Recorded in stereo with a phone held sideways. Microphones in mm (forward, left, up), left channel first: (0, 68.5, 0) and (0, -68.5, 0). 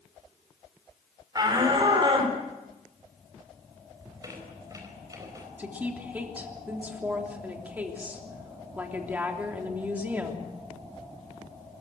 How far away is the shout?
About 5 m.